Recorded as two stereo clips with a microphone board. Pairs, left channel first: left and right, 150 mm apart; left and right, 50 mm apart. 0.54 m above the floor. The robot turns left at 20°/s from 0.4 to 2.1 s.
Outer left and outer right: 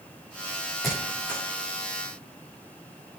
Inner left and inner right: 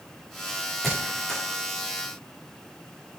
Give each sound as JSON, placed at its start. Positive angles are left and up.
{"t": 0.8, "sound": "a squeak", "side_deg": 0, "distance_m": 6.5}